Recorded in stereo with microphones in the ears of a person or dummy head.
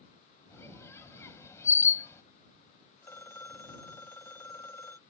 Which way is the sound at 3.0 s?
15° left (ahead or behind).